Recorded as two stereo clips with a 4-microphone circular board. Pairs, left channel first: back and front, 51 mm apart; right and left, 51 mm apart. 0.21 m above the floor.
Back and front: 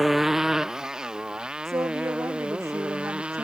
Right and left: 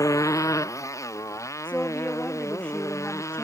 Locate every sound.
0.0 s a motorcycle: 85° right; by 3.5 s 70° right
1.6 s a woman speaking: 20° right